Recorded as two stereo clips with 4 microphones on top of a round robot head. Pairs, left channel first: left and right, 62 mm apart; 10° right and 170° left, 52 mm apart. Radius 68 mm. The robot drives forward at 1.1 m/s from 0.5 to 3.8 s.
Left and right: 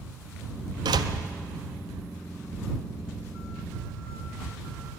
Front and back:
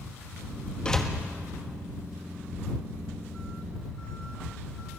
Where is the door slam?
85° right, 1.1 m; by 1.1 s 100° right, 1.1 m.